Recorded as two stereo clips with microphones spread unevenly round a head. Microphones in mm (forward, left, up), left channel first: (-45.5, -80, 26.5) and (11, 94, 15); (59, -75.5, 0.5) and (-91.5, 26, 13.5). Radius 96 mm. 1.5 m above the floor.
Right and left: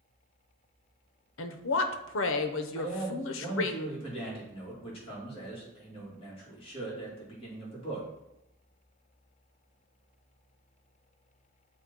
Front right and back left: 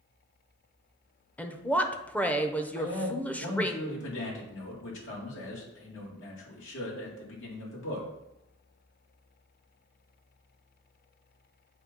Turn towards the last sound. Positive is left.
turn(degrees=-45)